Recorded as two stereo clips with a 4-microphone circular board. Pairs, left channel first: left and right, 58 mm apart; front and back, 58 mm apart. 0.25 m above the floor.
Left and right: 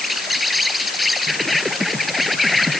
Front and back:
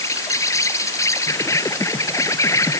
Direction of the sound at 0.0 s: Straight ahead.